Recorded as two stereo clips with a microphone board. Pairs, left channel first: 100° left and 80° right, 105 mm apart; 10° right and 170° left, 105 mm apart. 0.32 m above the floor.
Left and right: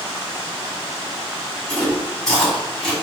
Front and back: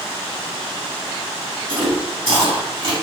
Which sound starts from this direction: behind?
Chewing, at 1.7 s.